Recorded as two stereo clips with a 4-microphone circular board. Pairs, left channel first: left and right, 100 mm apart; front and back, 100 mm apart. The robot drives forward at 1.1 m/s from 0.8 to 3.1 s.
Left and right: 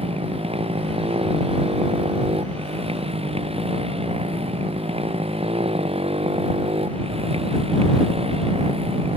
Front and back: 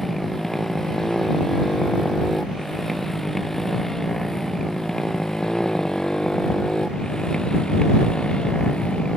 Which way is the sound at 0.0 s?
85° right.